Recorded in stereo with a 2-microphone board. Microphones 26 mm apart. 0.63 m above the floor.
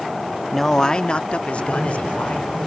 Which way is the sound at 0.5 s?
10° left (ahead or behind).